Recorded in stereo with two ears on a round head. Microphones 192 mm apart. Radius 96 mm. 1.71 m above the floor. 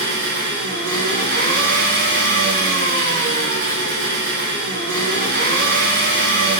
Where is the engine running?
60° right (ahead or behind), 1.6 m.